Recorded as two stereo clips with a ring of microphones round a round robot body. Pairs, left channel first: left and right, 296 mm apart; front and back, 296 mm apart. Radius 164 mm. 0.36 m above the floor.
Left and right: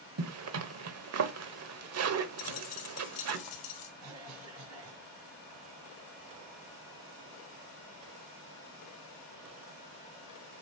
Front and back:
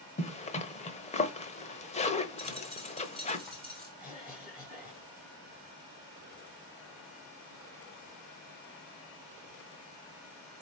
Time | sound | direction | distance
0.2 | a zipper | 65° right | 1.0 m
2.4 | a dropped coin | 90° left | 2.5 m
4.0 | a cough | 70° right | 2.5 m